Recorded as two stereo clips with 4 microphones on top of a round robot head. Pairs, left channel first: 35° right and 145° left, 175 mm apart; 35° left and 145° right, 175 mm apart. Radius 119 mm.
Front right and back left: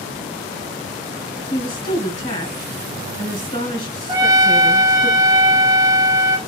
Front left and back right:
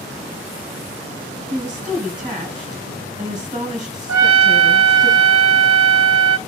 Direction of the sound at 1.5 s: 80° right.